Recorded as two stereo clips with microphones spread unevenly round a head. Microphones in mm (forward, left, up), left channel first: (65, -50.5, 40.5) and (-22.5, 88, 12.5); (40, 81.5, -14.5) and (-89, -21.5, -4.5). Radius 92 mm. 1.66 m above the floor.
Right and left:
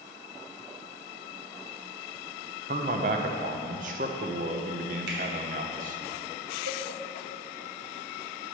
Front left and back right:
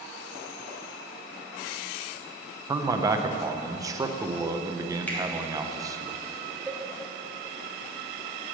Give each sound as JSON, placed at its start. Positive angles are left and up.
{"t": 2.7, "sound": "a man speaking", "azimuth_deg": 165, "distance_m": 0.8}
{"t": 5.1, "sound": "a finger snap", "azimuth_deg": 120, "distance_m": 2.5}
{"t": 6.7, "sound": "a cowbell", "azimuth_deg": 135, "distance_m": 1.5}